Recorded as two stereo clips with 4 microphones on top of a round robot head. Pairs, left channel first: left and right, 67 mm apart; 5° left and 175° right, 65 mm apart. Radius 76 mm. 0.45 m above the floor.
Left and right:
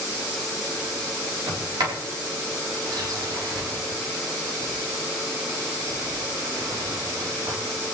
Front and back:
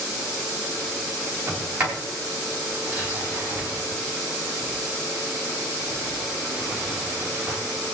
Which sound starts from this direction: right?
A sliding door, at 1.5 s.